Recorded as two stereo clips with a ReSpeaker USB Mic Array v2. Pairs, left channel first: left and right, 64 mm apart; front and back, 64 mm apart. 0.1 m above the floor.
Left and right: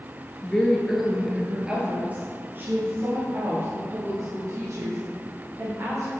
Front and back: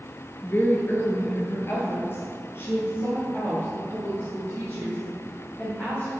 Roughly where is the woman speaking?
Ahead left.